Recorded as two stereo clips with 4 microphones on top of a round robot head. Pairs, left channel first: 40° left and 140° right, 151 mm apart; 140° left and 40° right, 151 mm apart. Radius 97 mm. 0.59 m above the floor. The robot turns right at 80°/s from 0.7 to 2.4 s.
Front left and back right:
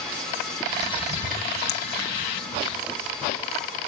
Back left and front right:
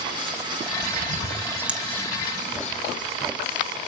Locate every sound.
0.8 s a bird: 30° right, 1.8 m; by 2.8 s 100° left, 1.8 m